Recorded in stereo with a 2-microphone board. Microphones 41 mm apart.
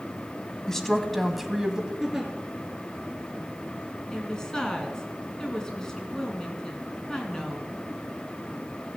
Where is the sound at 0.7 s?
15° left (ahead or behind), 1.3 m; by 1.9 s 20° right (ahead or behind), 1.3 m.